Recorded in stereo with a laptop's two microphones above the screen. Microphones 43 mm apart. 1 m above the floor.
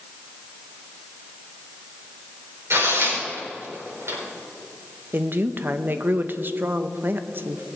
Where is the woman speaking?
50° right (ahead or behind), 0.8 m.